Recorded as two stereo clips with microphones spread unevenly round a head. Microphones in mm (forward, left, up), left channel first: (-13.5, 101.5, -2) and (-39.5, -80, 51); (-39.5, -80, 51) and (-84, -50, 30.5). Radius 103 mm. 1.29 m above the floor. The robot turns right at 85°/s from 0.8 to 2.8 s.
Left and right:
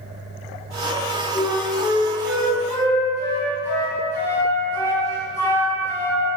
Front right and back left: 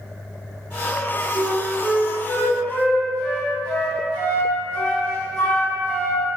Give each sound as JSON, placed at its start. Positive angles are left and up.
{"t": 1.4, "sound": "a flute", "azimuth_deg": -135, "distance_m": 0.5}